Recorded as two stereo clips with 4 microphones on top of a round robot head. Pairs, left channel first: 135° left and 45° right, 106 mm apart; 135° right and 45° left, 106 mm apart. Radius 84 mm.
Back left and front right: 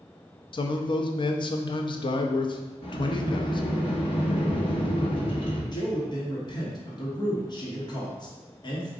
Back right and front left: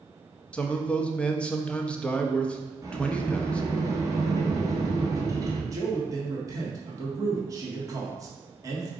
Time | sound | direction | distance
0.5 | a man speaking | 150° left | 0.6 m
2.8 | a sliding door | 105° left | 1.1 m
5.7 | a man speaking | 100° left | 1.3 m